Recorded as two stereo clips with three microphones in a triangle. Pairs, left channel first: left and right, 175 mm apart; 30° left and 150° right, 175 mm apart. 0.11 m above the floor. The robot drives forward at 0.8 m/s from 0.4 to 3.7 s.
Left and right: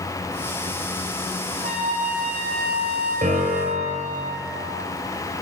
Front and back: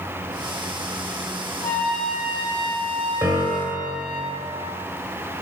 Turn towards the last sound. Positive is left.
turn(degrees=-105)